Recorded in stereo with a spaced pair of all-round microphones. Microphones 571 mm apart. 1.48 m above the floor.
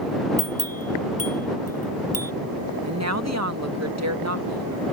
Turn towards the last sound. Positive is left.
turn(degrees=-25)  # may be behind; listen again after turning